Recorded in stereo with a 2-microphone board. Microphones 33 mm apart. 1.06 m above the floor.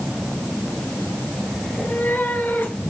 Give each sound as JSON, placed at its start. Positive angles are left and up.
{"t": 1.6, "sound": "a cat meowing", "side_deg": 80, "distance_m": 6.5}